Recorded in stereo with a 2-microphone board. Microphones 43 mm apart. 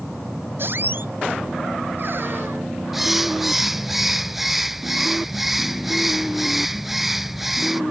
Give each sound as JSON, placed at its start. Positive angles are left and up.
{"t": 0.6, "sound": "a squeak", "side_deg": -55}
{"t": 2.9, "sound": "a bird", "side_deg": -5}